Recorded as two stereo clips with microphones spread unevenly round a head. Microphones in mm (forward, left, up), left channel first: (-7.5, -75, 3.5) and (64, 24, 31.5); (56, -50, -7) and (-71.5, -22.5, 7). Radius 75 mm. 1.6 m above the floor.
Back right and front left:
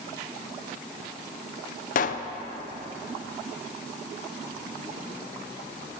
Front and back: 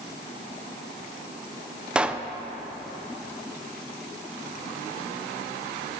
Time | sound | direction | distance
1.9 | a pop | 115° right | 0.5 m